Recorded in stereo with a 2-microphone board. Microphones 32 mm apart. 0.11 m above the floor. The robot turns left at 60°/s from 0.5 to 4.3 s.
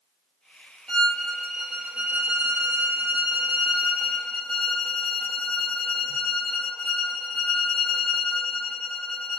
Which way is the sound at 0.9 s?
20° left.